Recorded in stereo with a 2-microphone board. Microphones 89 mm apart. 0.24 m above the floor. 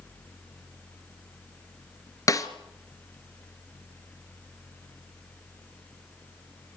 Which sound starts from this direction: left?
A snare drum, at 2.3 s.